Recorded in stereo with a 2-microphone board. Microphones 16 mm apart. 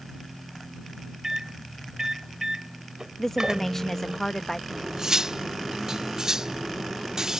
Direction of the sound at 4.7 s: 30° right (ahead or behind).